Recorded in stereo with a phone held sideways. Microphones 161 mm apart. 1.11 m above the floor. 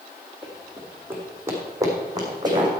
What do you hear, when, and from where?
0.4 s running footsteps: 5° right (ahead or behind), 3 m; by 2.8 s 25° right (ahead or behind), 3.5 m